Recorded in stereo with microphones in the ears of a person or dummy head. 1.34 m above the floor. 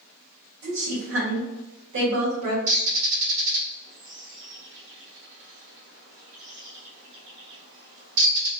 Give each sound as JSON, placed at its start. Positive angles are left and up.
{"t": 0.6, "sound": "a woman speaking", "side_deg": -70, "distance_m": 1.4}
{"t": 2.7, "sound": "a bird", "side_deg": -60, "distance_m": 1.2}